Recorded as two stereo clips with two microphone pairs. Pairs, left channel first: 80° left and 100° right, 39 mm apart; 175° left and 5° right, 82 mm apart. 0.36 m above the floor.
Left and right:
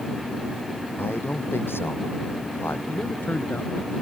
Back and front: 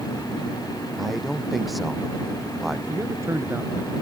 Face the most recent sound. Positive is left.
turn(degrees=45)